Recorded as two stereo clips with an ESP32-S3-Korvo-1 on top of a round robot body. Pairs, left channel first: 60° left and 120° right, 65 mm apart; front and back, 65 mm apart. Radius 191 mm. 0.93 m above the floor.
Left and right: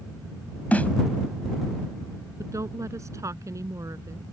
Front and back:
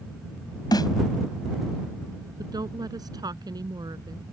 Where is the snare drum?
10° right.